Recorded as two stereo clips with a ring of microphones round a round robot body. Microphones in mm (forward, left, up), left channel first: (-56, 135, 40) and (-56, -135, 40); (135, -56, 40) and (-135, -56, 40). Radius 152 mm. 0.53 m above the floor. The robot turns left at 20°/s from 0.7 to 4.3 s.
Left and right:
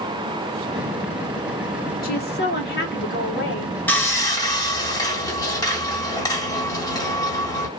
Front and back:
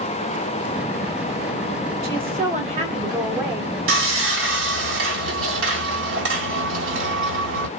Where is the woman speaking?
135° left, 1.4 m; by 3.8 s 100° left, 1.4 m.